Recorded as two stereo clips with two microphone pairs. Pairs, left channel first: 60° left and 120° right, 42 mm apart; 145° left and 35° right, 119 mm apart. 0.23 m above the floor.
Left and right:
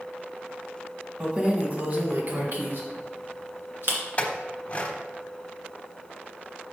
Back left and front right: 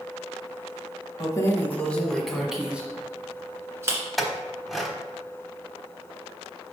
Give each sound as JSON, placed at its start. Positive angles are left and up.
{"t": 1.2, "sound": "keys jangling", "azimuth_deg": -170, "distance_m": 1.1}
{"t": 4.2, "sound": "a clink", "azimuth_deg": 45, "distance_m": 1.0}